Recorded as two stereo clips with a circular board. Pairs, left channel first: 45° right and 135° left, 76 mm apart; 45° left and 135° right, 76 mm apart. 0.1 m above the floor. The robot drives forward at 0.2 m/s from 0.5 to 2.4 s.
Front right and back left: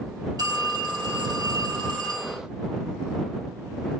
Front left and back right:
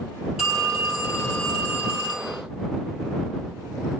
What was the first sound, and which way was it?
A phone ringing, 140° left.